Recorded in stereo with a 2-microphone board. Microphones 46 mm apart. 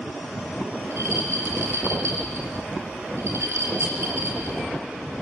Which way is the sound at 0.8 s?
80° right.